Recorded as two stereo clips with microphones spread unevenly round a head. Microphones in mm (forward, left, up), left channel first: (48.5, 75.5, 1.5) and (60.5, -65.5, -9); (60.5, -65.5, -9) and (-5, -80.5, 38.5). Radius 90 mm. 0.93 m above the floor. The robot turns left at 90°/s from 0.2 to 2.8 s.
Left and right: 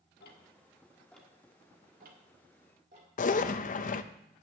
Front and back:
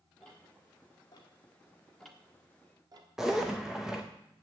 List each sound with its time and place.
0.2 s ticking: 95° left, 1.7 m; by 3.1 s 140° right, 1.7 m
3.2 s a zipper: 80° left, 0.6 m